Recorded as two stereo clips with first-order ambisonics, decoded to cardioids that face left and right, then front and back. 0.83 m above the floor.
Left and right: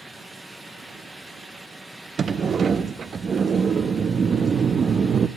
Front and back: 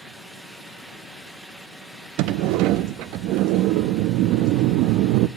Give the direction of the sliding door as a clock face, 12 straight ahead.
5 o'clock.